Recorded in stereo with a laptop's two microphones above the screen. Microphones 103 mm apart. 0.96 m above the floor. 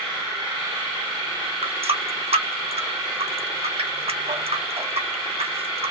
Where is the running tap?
75° right (ahead or behind), 0.9 m.